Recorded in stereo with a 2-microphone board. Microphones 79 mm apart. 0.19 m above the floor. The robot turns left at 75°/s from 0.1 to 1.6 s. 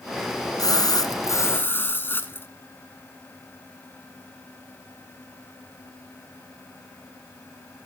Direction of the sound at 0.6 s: 110° left.